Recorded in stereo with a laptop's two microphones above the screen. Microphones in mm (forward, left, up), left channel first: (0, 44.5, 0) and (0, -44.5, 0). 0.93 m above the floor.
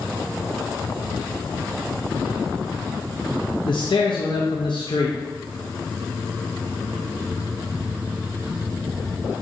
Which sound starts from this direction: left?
A man speaking, at 3.6 s.